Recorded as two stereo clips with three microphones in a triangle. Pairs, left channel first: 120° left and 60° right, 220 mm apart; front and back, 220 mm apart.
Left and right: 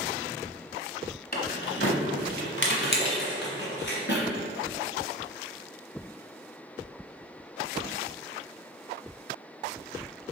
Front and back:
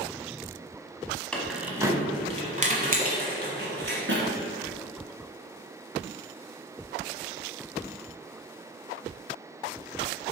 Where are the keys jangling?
85° left, 1.0 m; by 4.2 s 150° left, 2 m.